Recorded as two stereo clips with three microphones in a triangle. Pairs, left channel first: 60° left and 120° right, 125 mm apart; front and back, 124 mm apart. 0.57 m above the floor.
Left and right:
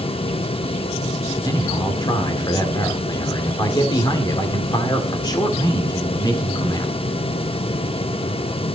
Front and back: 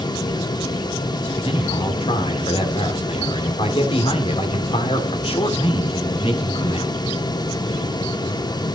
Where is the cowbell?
No cowbell in this recording.